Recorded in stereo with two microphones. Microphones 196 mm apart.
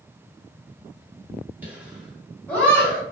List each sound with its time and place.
1.6 s laughter: 10° right (ahead or behind), 1.6 m; by 3.0 s 20° left (ahead or behind), 1.5 m